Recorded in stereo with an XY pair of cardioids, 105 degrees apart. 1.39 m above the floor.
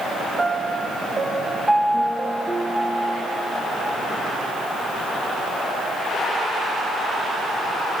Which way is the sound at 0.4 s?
20° right.